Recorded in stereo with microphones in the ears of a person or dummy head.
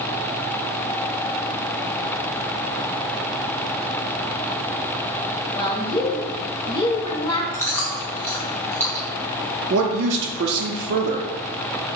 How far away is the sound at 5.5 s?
About 0.7 m.